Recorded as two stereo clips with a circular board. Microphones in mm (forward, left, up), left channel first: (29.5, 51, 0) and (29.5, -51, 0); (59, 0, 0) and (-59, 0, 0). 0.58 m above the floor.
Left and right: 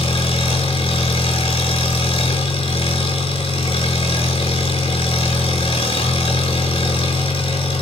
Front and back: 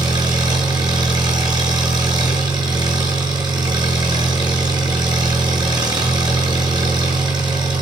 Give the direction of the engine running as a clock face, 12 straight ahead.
8 o'clock.